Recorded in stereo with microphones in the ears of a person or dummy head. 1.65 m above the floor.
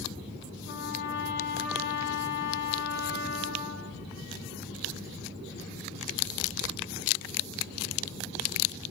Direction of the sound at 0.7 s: 70° left (ahead or behind).